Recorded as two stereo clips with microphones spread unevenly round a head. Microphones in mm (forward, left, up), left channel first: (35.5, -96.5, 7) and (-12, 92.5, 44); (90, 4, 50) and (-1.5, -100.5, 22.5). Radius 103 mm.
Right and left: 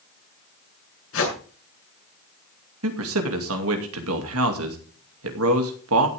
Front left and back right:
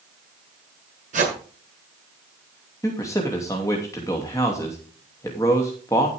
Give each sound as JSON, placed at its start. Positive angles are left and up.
{"t": 1.1, "sound": "a whoosh", "azimuth_deg": -100, "distance_m": 7.5}
{"t": 2.8, "sound": "a man speaking", "azimuth_deg": 125, "distance_m": 2.5}